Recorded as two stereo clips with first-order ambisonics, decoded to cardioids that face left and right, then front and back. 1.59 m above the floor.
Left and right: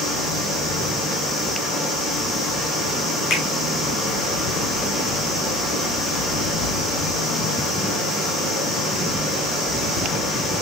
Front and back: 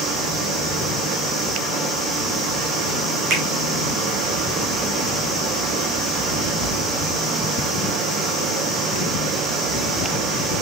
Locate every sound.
0.0 s running water: 150° left, 5.5 m
3.3 s a finger snap: 135° left, 6 m